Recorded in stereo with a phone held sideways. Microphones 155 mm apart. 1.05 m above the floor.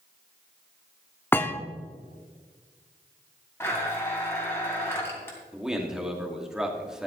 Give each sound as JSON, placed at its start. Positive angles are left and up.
{"t": 1.3, "sound": "a thud", "side_deg": 15, "distance_m": 0.7}
{"t": 3.6, "sound": "a blender", "side_deg": 15, "distance_m": 2.5}
{"t": 5.5, "sound": "a man speaking", "side_deg": -5, "distance_m": 2.0}